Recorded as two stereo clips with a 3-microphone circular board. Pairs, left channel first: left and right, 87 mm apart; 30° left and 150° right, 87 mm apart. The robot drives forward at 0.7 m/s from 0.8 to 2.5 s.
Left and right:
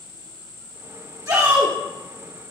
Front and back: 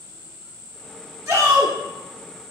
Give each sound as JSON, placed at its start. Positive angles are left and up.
{"t": 1.3, "sound": "a shout", "azimuth_deg": -110, "distance_m": 1.4}